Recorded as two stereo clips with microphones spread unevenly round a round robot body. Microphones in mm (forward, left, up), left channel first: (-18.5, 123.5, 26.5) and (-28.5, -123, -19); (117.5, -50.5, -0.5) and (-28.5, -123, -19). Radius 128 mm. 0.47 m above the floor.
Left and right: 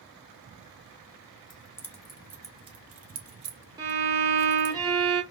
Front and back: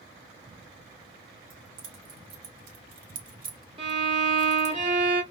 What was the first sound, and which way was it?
Keys jangling, 165° left.